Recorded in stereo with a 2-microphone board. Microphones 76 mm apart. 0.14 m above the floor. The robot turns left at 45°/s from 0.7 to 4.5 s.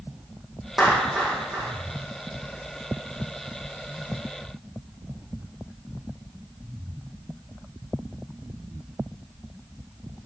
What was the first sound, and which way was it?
A clap, 5° right (ahead or behind).